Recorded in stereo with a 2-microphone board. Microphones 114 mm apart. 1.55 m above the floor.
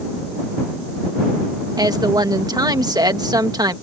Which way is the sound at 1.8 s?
35° right (ahead or behind).